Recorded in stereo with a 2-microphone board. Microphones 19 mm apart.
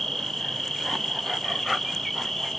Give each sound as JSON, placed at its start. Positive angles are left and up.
{"t": 0.0, "sound": "an insect", "side_deg": 5, "distance_m": 3.5}